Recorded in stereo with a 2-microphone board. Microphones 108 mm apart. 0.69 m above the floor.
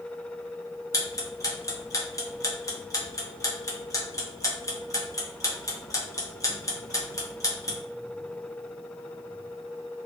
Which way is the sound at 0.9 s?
30° left (ahead or behind).